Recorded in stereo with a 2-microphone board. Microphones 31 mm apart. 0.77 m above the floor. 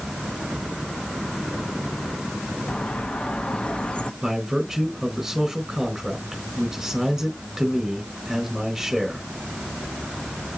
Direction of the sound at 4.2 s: 10° right (ahead or behind).